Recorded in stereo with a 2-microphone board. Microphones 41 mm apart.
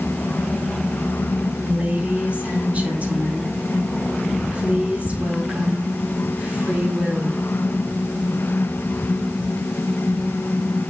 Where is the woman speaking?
35° right (ahead or behind), 4 m.